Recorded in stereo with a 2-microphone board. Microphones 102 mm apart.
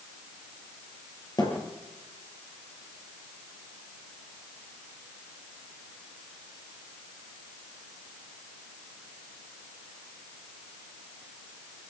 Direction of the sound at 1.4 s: 40° left (ahead or behind).